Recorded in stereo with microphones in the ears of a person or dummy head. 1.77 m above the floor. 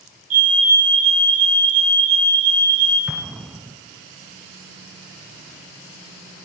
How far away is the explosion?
About 0.7 m.